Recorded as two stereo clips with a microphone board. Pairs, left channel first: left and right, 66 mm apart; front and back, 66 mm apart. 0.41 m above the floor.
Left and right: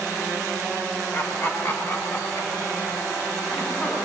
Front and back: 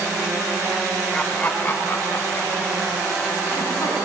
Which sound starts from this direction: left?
Laughter, at 1.1 s.